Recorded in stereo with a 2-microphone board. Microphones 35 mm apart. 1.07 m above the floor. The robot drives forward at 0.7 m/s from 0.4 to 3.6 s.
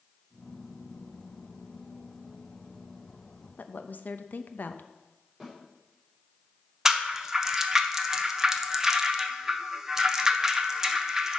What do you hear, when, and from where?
3.6 s a woman speaking: 55° left (ahead or behind), 0.6 m
5.4 s a snare drum: centre (ahead or behind), 4 m
6.8 s a rattle: 15° right (ahead or behind), 0.7 m